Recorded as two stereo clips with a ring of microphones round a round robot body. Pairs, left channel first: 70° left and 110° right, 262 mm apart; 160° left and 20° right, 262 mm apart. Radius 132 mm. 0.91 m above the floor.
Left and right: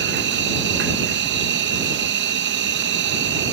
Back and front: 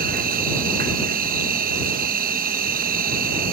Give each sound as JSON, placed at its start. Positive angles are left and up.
{"t": 0.0, "sound": "an insect", "azimuth_deg": -75}